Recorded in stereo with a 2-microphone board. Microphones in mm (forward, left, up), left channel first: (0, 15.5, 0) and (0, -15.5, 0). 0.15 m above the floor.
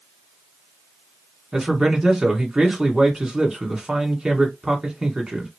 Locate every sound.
1.5 s a man speaking: 20° right (ahead or behind), 1.4 m